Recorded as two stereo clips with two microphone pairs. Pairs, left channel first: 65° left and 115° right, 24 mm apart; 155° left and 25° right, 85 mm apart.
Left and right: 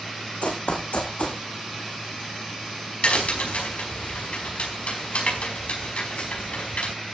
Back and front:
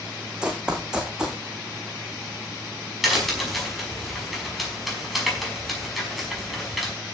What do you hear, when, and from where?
0.4 s running footsteps: 55° left, 3 m
3.0 s a crack: 65° left, 5 m